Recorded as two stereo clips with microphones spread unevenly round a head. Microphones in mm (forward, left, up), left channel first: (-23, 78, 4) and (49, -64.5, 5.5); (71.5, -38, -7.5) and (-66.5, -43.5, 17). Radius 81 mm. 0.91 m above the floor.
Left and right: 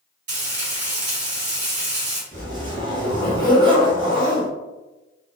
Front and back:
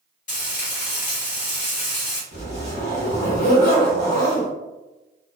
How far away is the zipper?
About 1.6 m.